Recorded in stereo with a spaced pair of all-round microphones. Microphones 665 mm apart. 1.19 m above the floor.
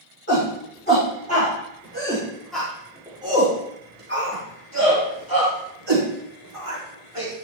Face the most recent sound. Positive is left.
turn(degrees=-55)  # may be behind; listen again after turning